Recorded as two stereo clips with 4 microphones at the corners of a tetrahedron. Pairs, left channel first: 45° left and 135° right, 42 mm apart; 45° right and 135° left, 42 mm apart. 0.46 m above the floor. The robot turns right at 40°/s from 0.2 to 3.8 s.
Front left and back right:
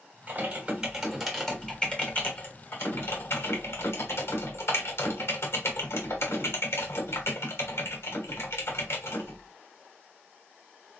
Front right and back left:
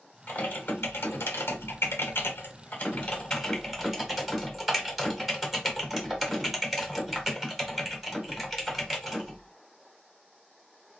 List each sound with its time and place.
0.3 s typing on a keyboard: 90° right, 1.3 m; by 9.5 s 55° left, 1.3 m